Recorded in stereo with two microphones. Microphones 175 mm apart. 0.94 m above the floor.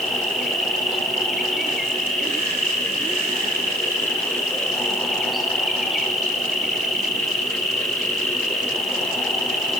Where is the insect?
Centre (ahead or behind), 4.5 m.